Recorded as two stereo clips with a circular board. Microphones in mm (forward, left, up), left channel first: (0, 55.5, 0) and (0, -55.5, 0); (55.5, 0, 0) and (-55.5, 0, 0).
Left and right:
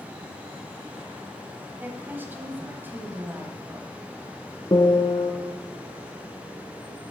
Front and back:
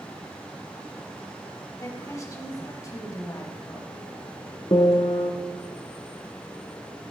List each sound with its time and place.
1.8 s a woman speaking: 30° right, 1.2 m
4.7 s a piano: 45° left, 0.9 m